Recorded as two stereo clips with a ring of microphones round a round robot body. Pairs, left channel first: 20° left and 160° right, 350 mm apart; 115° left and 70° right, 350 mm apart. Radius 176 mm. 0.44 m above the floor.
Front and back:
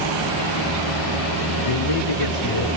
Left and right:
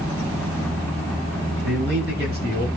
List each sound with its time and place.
1.6 s a man speaking: 5° right, 8 m; by 2.7 s straight ahead, 7 m